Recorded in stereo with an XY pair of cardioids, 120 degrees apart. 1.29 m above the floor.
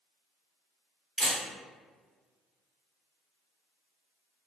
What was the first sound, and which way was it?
A camera shutter, 15° right.